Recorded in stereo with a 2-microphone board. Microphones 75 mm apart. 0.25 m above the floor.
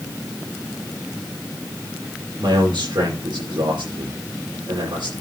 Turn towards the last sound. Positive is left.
turn(degrees=-80)